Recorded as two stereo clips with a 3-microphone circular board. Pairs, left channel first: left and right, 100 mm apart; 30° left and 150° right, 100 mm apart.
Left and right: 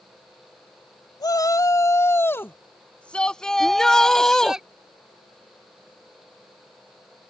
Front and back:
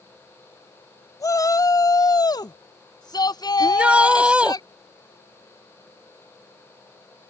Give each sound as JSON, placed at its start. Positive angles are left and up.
{"t": 1.2, "sound": "a shout", "azimuth_deg": 65}
{"t": 3.6, "sound": "a shout", "azimuth_deg": 160}